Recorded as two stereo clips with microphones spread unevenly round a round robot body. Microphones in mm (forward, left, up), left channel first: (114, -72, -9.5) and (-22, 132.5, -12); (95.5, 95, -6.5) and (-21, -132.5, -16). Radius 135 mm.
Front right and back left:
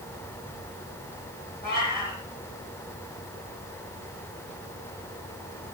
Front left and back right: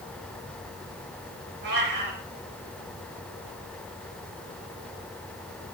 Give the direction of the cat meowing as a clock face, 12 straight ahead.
4 o'clock.